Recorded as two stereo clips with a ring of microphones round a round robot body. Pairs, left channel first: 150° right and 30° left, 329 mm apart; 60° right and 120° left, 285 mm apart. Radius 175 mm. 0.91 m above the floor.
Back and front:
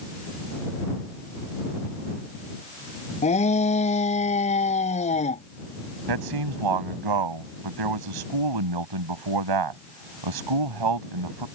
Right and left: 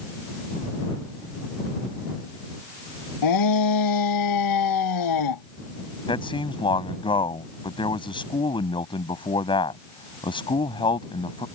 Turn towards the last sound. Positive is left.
turn(degrees=15)